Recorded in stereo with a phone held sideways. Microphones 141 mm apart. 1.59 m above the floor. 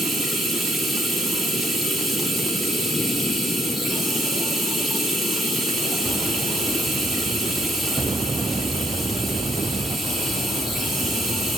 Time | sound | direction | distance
0.0 | running water | centre (ahead or behind) | 2.0 m